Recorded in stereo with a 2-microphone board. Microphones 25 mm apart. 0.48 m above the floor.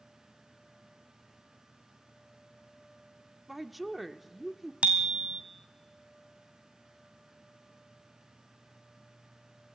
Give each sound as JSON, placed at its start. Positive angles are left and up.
{"t": 3.5, "sound": "a woman speaking", "side_deg": -5, "distance_m": 0.7}
{"t": 4.8, "sound": "a bicycle bell", "side_deg": -55, "distance_m": 2.0}